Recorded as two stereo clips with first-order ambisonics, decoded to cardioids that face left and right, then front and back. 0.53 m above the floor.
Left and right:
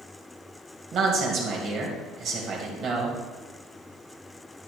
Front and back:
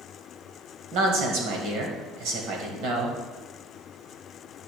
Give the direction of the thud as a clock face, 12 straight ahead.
No thud in this recording.